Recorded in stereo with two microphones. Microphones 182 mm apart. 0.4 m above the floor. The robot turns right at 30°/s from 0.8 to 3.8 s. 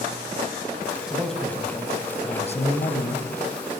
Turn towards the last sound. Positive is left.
turn(degrees=80)